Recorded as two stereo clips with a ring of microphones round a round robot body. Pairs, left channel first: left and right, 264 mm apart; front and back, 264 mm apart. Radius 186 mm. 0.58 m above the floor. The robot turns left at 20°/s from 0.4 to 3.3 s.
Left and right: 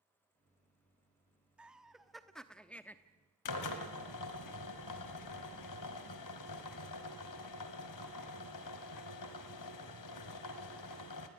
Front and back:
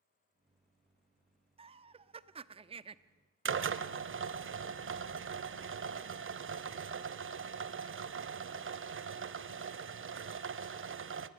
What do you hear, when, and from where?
1.6 s laughter: 170° right, 0.7 m; by 3.0 s 160° left, 0.7 m
3.5 s a drill: 135° left, 1.3 m